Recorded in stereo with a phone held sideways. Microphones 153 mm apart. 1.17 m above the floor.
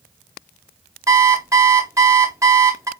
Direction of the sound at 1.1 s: 20° right (ahead or behind).